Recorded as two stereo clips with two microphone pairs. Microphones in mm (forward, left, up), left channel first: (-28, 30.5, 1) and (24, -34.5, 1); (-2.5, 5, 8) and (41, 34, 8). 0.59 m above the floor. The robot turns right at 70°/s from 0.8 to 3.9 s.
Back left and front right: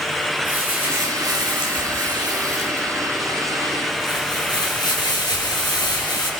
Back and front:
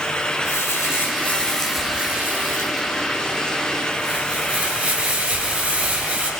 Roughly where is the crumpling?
Behind right.